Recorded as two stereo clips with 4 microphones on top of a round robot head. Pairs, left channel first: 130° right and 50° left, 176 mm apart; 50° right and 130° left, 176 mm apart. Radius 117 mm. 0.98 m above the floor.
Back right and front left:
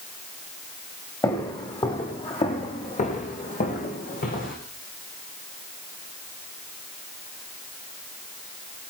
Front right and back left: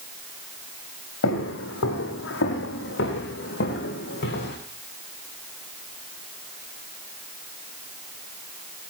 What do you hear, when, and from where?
1.2 s footsteps: 60° right, 4.5 m; by 4.6 s 90° right, 5 m